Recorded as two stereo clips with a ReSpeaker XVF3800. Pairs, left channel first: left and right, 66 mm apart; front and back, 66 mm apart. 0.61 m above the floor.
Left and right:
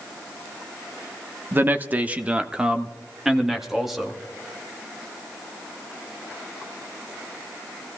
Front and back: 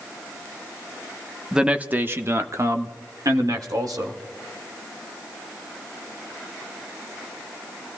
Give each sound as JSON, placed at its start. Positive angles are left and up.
{"t": 1.5, "sound": "a man speaking", "azimuth_deg": -110, "distance_m": 0.8}